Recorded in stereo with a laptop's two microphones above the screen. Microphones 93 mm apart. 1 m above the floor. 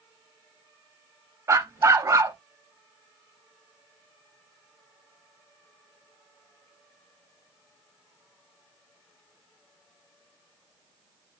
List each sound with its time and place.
1.5 s a dog barking: 35° right (ahead or behind), 0.5 m